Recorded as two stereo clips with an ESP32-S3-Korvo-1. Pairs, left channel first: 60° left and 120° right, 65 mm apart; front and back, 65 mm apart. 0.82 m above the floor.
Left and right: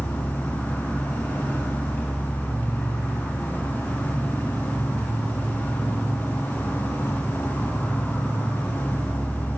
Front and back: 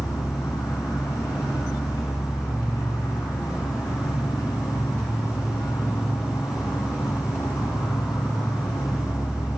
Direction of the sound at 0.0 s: Straight ahead.